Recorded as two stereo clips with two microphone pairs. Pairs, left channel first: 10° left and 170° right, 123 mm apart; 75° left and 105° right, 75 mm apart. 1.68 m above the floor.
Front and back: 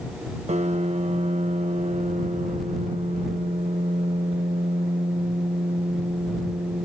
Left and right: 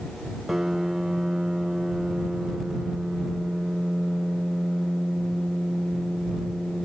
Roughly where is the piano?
Behind.